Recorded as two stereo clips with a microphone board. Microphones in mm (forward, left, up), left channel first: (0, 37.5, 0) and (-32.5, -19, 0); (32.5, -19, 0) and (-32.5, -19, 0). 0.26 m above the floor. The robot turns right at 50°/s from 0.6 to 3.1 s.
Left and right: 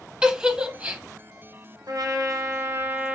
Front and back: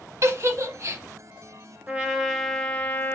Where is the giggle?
170° left, 0.6 m; by 1.0 s 170° right, 0.6 m.